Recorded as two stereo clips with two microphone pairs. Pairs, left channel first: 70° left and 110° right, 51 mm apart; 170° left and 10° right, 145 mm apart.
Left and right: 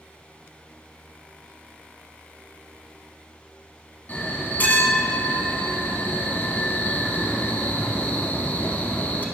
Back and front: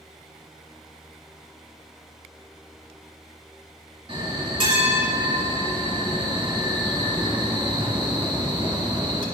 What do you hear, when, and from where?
4.1 s a bell: 30° left, 1.1 m